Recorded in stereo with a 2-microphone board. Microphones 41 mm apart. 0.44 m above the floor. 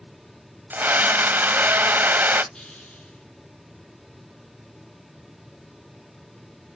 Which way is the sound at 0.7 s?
50° right (ahead or behind).